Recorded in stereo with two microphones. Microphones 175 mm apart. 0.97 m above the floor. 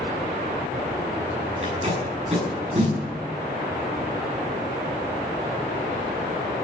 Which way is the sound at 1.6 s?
35° right (ahead or behind).